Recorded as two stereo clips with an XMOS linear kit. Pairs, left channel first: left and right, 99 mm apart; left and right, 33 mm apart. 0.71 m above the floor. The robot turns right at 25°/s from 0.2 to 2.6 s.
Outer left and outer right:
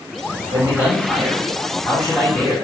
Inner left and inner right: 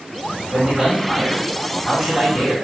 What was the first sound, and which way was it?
A man speaking, 40° right.